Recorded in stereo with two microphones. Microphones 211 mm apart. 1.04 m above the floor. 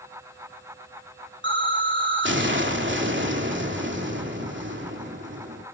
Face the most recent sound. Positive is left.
turn(degrees=-65)  # may be behind; listen again after turning